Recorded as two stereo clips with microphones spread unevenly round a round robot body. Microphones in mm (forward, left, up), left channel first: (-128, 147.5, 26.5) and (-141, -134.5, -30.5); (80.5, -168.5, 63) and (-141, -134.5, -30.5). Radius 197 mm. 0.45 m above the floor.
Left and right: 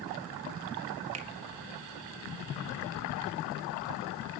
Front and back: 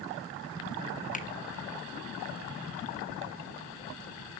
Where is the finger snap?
80° right, 2 m.